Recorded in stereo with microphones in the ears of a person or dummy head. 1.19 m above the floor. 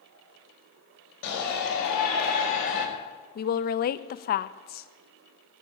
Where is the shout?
65° left (ahead or behind), 5.5 m; by 2.9 s 45° left (ahead or behind), 4 m.